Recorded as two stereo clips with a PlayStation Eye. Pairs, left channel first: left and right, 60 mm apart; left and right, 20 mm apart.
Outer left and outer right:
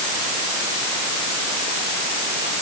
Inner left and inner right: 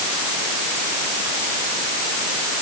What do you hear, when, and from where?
Only background noise.